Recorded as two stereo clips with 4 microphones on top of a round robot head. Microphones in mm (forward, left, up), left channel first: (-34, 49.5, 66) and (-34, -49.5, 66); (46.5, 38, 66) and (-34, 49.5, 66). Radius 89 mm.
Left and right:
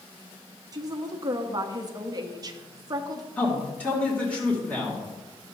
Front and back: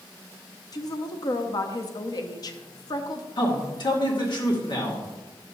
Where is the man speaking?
15° left, 2.5 m.